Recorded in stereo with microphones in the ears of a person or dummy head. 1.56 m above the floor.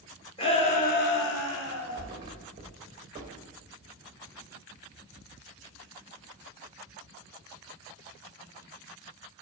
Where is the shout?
30° left (ahead or behind), 1.7 m; by 2.1 s 60° left (ahead or behind), 1.5 m.